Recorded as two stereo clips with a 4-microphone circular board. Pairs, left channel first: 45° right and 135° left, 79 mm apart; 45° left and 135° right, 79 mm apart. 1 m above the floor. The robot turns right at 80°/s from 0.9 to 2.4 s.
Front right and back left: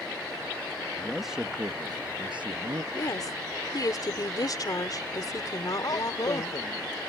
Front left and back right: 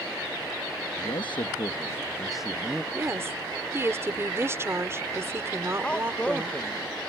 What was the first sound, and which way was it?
A man speaking, 25° left.